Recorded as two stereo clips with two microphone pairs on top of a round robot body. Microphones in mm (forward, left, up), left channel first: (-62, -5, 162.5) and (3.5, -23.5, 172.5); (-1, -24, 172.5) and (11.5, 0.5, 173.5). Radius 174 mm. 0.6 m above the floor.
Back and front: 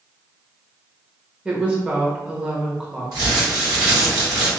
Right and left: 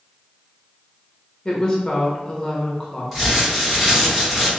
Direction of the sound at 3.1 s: 25° right.